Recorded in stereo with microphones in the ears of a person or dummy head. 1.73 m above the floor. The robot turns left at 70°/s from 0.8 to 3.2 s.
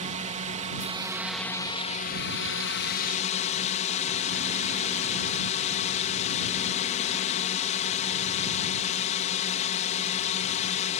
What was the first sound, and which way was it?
A drone, 145° right.